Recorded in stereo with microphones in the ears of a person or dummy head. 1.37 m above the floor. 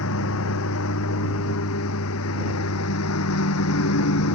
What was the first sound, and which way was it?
A lawn mower, 75° left (ahead or behind).